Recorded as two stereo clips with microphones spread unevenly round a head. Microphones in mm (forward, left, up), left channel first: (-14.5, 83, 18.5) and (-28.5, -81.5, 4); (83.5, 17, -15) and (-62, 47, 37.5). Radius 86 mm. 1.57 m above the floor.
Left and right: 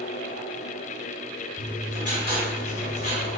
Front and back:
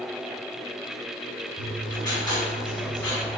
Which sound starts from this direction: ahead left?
Writing, at 1.6 s.